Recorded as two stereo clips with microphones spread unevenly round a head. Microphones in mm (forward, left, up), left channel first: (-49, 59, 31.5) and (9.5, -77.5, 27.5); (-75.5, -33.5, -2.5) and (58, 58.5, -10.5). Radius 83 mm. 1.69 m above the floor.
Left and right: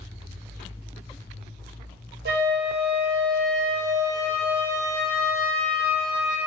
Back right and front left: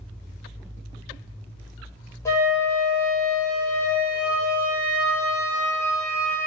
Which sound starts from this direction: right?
A flute, at 2.2 s.